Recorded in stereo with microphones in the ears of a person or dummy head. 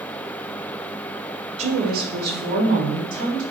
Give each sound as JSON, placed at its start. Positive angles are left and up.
{"t": 1.6, "sound": "a woman speaking", "side_deg": -30, "distance_m": 0.9}